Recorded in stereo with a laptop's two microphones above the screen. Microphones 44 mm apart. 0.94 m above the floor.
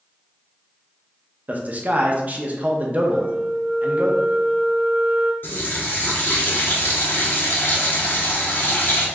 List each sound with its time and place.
1.5 s a man speaking: 40° right (ahead or behind), 0.6 m
3.1 s a flute: 50° right (ahead or behind), 0.6 m
5.4 s a running tap: 55° left (ahead or behind), 1.0 m